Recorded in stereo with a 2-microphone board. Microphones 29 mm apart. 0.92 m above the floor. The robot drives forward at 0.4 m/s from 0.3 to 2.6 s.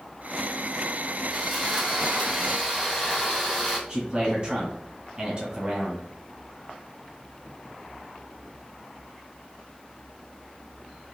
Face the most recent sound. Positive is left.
turn(degrees=-35)  # may be behind; listen again after turning